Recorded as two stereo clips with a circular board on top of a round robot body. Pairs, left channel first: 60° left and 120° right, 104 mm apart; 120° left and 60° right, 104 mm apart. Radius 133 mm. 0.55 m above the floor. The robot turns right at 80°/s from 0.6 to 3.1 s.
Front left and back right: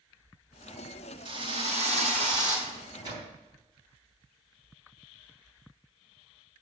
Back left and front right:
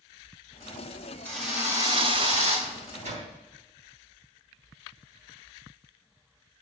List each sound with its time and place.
1.2 s a drill: 165° right, 4.5 m; by 2.6 s 60° right, 4.5 m
2.7 s a microwave: 100° right, 3.5 m; by 3.3 s 65° right, 3.5 m